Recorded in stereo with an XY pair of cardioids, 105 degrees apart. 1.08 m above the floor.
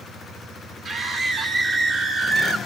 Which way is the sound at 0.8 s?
60° right.